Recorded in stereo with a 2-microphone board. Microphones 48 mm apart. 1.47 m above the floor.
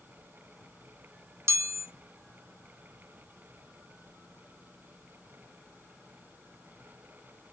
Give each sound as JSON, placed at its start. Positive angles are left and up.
{"t": 1.5, "sound": "a chime", "side_deg": -80, "distance_m": 0.5}